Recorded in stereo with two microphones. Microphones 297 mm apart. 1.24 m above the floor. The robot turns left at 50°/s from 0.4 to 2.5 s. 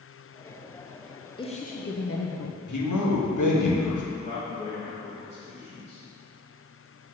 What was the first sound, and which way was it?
A woman speaking, 165° left.